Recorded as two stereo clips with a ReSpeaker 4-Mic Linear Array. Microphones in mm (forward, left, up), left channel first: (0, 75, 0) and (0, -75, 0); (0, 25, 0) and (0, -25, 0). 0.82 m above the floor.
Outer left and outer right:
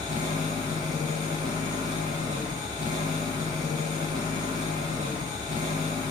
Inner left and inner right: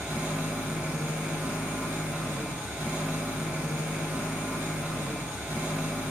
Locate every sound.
0.0 s an engine running: 55° right (ahead or behind), 1.9 m